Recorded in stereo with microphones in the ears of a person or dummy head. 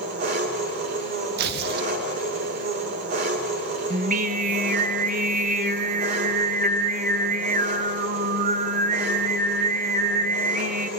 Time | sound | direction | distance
0.0 | an engine running | 50° right (ahead or behind) | 2 m
1.4 | tearing paper | 55° right (ahead or behind) | 0.7 m
3.9 | singing | 45° right (ahead or behind) | 0.9 m